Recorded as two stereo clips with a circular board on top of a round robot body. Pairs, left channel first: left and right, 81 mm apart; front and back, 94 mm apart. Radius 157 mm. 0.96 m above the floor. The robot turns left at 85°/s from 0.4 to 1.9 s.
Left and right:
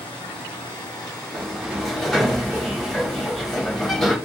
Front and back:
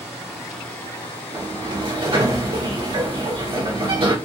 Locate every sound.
0.0 s running water: 95° left, 2 m; by 4.2 s 30° right, 2 m
1.3 s a sliding door: 135° right, 3 m; by 4.2 s straight behind, 3 m